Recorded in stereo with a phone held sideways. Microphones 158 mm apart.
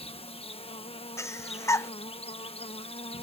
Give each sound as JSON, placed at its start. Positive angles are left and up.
{"t": 0.0, "sound": "an insect", "side_deg": 35}
{"t": 1.2, "sound": "breathing", "side_deg": 20}